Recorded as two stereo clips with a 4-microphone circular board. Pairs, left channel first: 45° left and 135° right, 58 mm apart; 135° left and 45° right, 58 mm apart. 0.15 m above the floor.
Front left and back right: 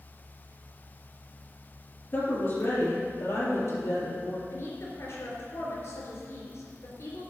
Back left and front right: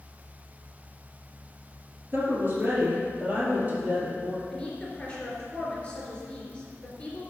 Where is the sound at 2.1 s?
5° left, 3 m; by 4.4 s 20° left, 5.5 m.